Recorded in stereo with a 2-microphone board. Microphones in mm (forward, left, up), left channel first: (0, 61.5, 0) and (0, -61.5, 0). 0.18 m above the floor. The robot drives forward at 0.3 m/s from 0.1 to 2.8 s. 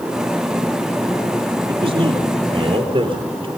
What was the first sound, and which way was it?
A man speaking, 50° right (ahead or behind).